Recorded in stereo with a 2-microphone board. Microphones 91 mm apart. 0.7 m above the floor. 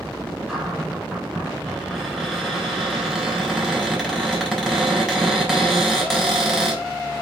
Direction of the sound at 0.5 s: 5° right (ahead or behind).